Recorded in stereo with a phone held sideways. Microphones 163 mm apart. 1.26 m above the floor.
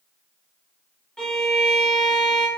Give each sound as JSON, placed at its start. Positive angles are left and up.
{"t": 1.2, "sound": "a violin", "side_deg": 5, "distance_m": 1.4}